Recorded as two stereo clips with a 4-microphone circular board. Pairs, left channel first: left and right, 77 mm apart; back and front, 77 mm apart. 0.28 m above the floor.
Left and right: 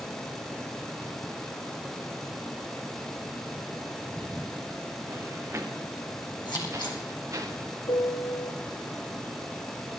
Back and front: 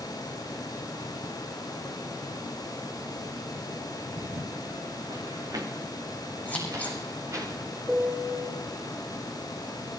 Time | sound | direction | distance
4.1 | footsteps | 15° right | 1.3 m
6.5 | scissors | 110° left | 3.5 m
7.9 | a piano | 85° left | 1.4 m